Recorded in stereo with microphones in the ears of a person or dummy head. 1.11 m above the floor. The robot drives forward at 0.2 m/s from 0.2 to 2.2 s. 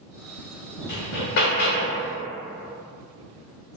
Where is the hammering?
50° left (ahead or behind), 0.7 m.